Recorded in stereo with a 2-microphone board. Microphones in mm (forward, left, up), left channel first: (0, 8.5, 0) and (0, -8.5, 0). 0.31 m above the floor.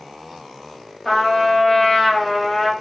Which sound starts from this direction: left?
A trumpet, at 1.1 s.